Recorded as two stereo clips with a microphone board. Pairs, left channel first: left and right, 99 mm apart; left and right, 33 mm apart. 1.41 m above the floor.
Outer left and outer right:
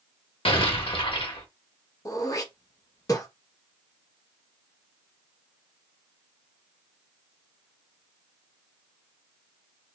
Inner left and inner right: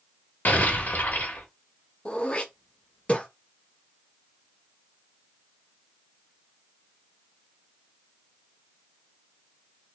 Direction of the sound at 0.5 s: 65° left (ahead or behind).